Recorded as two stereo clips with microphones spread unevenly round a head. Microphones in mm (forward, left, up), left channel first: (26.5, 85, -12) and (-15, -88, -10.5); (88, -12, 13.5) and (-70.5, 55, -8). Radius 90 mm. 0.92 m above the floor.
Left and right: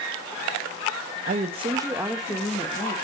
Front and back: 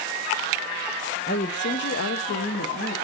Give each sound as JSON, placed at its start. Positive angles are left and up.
{"t": 1.3, "sound": "a woman speaking", "azimuth_deg": -60, "distance_m": 1.2}